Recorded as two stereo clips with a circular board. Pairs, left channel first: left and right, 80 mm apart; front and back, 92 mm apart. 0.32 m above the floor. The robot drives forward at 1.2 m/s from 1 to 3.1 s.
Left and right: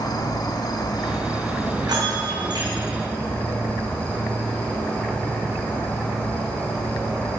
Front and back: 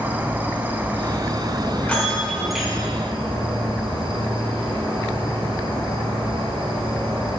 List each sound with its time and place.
0.0 s an insect: 110° left, 1.1 m; by 7.4 s 160° left, 3 m
1.8 s a bell: 70° right, 3 m; by 2.7 s 95° right, 2.5 m